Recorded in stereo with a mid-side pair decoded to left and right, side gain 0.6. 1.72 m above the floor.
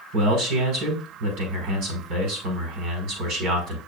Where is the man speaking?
70° right, 5 m.